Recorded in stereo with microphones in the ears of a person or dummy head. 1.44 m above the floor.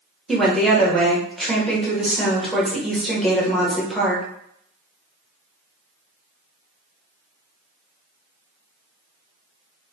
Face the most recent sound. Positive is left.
turn(degrees=0)  # may be behind; listen again after turning